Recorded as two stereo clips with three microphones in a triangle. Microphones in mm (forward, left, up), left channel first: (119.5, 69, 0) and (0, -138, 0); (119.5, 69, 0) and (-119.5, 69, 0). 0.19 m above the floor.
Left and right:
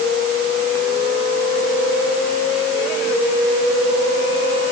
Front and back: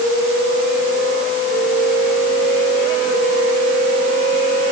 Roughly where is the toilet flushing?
No toilet flushing in this recording.